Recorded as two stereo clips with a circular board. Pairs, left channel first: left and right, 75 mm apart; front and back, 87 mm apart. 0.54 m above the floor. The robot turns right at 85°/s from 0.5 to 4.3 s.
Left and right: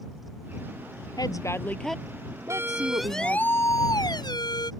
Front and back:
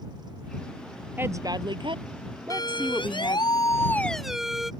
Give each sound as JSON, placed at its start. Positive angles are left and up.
{"t": 1.2, "sound": "a woman speaking", "azimuth_deg": 115}
{"t": 2.5, "sound": "a siren", "azimuth_deg": -40}